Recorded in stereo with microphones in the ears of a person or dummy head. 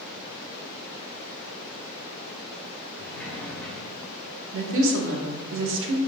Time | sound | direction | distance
3.0 | a sliding door | 10° left (ahead or behind) | 0.8 m
4.5 | a woman speaking | 75° right (ahead or behind) | 1.0 m